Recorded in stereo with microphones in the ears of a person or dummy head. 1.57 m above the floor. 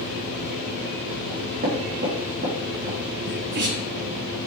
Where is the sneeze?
60° right (ahead or behind), 1.2 m.